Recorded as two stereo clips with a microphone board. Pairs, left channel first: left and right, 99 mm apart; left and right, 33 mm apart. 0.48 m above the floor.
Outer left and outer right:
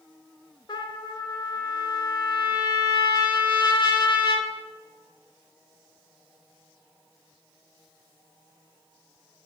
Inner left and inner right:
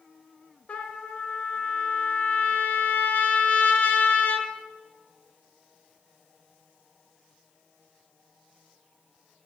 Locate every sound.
0.7 s a trumpet: 50° left (ahead or behind), 0.6 m